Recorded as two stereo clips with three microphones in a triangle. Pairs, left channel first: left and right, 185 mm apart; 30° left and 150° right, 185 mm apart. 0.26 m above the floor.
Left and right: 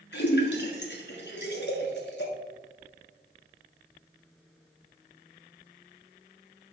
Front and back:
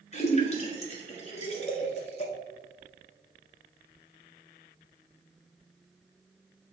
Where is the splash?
80° left, 1.5 m.